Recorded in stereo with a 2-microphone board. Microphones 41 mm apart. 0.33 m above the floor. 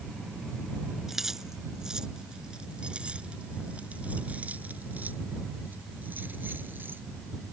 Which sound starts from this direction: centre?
Keys jangling, at 1.1 s.